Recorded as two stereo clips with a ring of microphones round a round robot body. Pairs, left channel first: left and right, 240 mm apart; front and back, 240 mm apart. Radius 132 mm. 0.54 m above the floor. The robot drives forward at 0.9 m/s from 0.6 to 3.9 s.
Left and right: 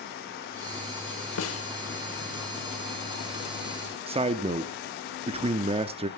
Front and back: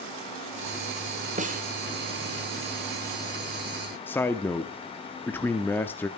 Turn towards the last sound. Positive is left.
turn(degrees=-70)